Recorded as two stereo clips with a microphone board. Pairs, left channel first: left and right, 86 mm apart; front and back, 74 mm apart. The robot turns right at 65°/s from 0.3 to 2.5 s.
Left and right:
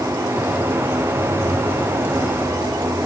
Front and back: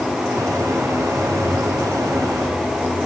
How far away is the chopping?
No chopping in this recording.